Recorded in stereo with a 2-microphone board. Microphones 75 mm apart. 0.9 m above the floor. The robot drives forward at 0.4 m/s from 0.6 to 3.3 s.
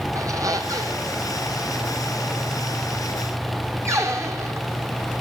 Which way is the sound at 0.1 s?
50° right (ahead or behind).